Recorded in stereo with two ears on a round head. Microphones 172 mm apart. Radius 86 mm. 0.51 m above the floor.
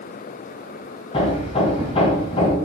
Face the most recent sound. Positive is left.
turn(degrees=30)  # may be behind; listen again after turning